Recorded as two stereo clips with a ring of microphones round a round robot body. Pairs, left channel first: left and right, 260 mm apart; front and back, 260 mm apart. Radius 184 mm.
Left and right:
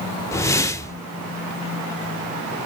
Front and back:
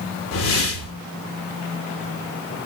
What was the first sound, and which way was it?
A whoosh, 10° left.